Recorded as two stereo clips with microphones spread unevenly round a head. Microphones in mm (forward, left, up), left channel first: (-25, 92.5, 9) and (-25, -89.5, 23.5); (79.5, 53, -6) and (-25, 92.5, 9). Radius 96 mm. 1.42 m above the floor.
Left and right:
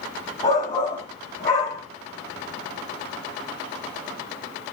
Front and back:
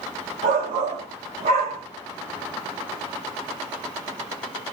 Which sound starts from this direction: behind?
A shout, at 0.4 s.